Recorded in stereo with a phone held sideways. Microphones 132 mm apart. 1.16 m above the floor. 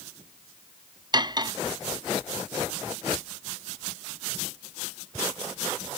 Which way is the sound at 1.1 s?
35° right (ahead or behind).